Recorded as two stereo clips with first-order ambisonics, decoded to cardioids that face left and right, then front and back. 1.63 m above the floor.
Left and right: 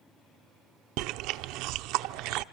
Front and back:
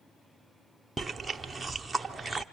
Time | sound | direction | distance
1.0 | chewing | 95° right | 0.6 m